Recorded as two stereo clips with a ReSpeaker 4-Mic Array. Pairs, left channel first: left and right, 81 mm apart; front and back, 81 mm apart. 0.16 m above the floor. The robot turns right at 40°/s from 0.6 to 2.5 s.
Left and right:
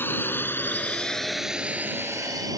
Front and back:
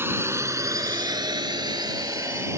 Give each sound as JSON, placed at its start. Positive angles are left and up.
{"t": 0.0, "sound": "a drone", "azimuth_deg": 140}